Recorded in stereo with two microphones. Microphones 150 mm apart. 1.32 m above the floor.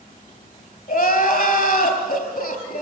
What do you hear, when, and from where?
0.9 s crying: 70° left (ahead or behind), 4 m